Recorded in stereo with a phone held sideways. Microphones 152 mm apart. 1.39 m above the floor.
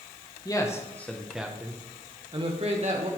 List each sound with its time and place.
0.5 s a man speaking: 25° left (ahead or behind), 1.5 m; by 3.1 s 50° right (ahead or behind), 1.9 m